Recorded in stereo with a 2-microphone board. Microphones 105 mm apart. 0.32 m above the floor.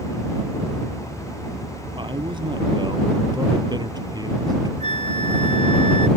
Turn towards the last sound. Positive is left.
turn(degrees=55)  # may be behind; listen again after turning